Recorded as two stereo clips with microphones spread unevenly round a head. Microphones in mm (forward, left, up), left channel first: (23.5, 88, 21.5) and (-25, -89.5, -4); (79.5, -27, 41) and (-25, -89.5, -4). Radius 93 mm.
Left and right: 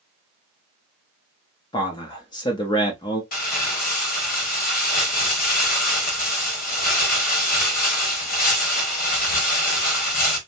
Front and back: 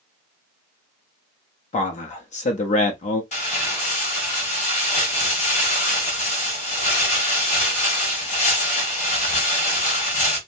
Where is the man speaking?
10° left, 0.6 m.